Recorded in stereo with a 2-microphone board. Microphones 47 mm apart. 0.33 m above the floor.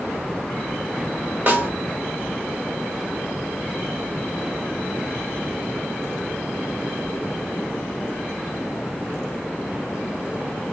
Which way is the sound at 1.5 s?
30° right (ahead or behind).